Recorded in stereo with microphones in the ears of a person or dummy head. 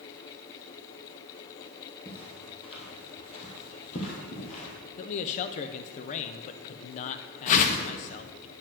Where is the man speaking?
40° left (ahead or behind), 0.5 m.